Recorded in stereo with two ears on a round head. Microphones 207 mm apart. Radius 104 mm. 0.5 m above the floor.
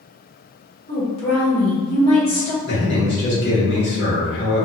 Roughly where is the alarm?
I don't hear an alarm.